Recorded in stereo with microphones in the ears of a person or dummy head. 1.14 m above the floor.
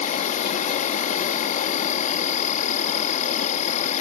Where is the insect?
50° left (ahead or behind).